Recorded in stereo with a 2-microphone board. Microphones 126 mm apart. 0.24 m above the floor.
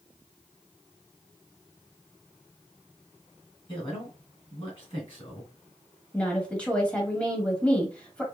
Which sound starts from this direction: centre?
A woman speaking, at 6.1 s.